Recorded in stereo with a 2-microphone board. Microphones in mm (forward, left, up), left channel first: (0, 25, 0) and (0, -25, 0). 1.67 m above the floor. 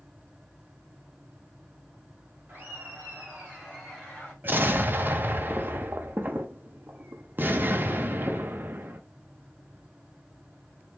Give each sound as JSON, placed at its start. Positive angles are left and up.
{"t": 2.5, "sound": "laughter", "side_deg": -40, "distance_m": 1.9}
{"t": 4.4, "sound": "an explosion", "side_deg": -40, "distance_m": 0.6}